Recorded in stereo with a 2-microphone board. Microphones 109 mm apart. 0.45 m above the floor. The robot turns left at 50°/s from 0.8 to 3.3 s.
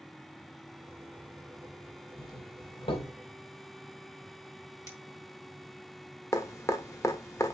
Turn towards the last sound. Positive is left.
turn(degrees=25)  # may be behind; listen again after turning